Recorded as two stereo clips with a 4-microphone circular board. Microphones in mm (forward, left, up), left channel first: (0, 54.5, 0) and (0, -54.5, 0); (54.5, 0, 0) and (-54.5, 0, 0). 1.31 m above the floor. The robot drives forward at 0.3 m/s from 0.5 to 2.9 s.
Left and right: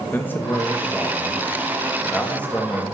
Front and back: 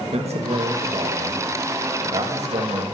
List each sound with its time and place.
0.1 s a man speaking: 160° left, 2.0 m; by 2.8 s 165° left, 2.5 m